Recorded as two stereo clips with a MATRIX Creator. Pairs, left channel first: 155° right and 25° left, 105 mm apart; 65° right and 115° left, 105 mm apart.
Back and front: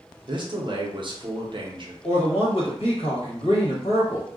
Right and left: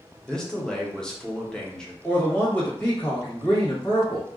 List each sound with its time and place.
0.3 s a man speaking: 15° left, 0.6 m
2.0 s a man speaking: 140° right, 1.2 m